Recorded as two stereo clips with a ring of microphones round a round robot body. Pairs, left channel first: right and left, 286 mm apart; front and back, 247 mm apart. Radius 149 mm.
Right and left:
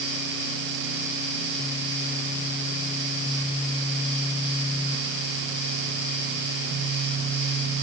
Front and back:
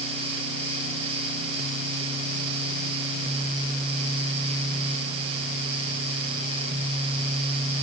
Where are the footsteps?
I don't hear footsteps.